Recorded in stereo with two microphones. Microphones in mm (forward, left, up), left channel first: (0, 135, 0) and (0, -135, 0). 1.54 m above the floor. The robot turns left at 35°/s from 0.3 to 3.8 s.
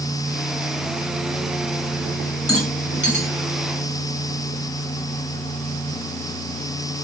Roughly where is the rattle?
Left.